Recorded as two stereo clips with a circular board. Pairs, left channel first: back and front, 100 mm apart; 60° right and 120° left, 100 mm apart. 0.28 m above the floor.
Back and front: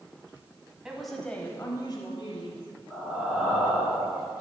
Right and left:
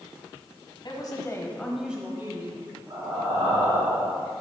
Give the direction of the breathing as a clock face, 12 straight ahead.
9 o'clock.